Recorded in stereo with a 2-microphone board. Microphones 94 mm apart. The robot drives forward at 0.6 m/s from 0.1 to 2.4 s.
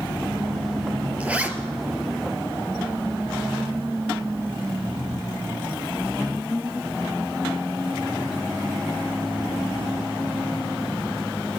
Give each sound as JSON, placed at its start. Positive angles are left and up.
{"t": 1.2, "sound": "a zipper", "side_deg": -15, "distance_m": 1.8}